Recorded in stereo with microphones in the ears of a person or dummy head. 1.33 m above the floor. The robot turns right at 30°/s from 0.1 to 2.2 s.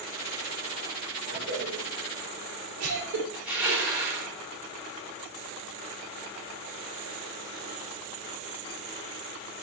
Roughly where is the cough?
Right.